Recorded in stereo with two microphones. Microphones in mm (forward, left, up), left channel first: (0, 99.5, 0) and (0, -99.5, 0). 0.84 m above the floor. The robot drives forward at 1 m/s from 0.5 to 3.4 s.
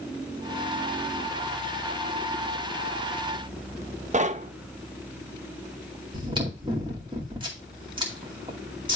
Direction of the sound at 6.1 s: 25° right (ahead or behind).